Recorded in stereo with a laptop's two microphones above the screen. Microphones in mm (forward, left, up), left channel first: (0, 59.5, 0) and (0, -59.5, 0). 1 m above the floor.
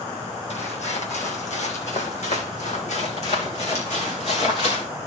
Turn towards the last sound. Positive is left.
turn(degrees=60)  # may be behind; listen again after turning